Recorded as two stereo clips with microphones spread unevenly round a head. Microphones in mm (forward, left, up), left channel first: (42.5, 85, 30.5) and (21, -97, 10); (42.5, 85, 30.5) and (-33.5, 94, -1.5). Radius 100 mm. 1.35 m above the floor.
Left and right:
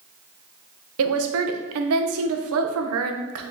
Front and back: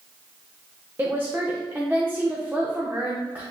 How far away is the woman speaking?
About 0.6 m.